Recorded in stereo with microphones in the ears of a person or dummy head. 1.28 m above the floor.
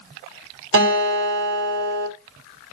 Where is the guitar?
65° right (ahead or behind), 1.1 m.